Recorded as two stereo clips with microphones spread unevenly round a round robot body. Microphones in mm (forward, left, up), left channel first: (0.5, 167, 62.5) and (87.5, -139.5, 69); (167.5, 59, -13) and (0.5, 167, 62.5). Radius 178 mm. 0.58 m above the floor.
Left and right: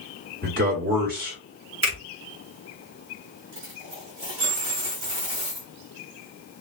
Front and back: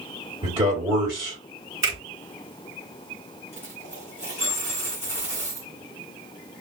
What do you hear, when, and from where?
0.4 s a man speaking: 135° right, 1.6 m
1.8 s a finger snap: 135° right, 2.5 m
3.5 s a dropped coin: 100° right, 2 m